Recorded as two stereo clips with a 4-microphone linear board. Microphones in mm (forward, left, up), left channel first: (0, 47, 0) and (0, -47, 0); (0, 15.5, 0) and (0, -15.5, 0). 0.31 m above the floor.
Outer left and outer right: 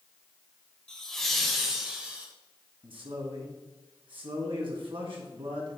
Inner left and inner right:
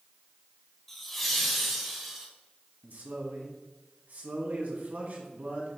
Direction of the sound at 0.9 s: 5° left (ahead or behind).